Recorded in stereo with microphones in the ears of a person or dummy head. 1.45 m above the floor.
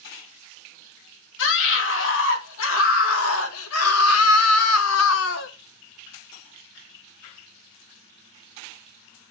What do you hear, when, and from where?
1.4 s a scream: 65° left (ahead or behind), 3.5 m